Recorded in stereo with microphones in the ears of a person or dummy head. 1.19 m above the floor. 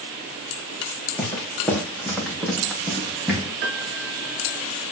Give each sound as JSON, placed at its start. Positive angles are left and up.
{"t": 1.2, "sound": "footsteps", "side_deg": 15, "distance_m": 3.5}
{"t": 3.6, "sound": "a piano", "side_deg": -70, "distance_m": 4.0}